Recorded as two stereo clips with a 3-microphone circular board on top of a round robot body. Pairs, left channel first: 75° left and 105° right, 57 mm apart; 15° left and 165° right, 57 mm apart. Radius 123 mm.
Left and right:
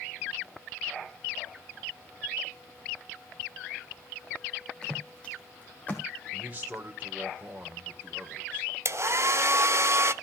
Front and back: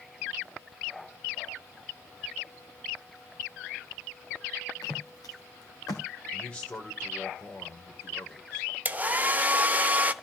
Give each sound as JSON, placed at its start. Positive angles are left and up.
{"t": 4.8, "sound": "footsteps", "azimuth_deg": 0, "distance_m": 2.0}
{"t": 6.3, "sound": "a man speaking", "azimuth_deg": -50, "distance_m": 1.7}
{"t": 8.8, "sound": "a hair dryer", "azimuth_deg": -115, "distance_m": 0.8}